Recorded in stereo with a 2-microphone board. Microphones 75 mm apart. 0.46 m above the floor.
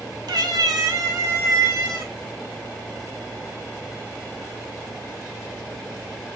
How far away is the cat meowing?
About 0.6 m.